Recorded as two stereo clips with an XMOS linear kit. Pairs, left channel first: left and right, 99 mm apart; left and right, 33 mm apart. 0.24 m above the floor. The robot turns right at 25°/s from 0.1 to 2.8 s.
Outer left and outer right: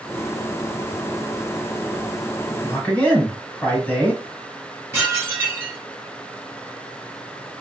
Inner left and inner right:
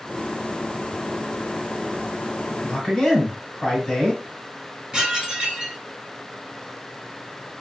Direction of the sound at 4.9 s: 25° right (ahead or behind).